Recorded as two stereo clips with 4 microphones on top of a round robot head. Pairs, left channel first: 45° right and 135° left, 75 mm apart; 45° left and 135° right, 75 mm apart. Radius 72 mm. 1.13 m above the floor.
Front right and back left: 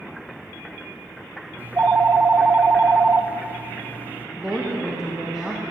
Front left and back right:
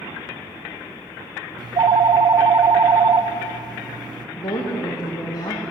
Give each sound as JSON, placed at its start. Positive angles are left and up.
{"t": 1.6, "sound": "a phone ringing", "azimuth_deg": -160, "distance_m": 0.6}
{"t": 4.4, "sound": "a woman speaking", "azimuth_deg": 50, "distance_m": 1.3}